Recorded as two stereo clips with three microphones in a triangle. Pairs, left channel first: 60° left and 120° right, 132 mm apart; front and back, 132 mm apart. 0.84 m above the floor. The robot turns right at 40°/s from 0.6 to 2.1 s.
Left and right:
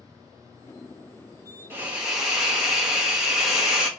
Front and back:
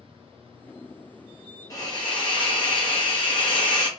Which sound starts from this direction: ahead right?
A hiss, at 1.7 s.